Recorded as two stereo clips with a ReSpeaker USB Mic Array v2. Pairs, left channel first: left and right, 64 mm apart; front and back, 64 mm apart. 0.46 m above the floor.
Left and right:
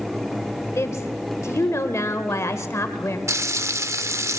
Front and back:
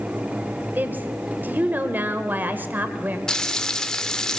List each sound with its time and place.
0.8 s a woman speaking: 125° left, 1.4 m
3.3 s frying: 75° right, 0.6 m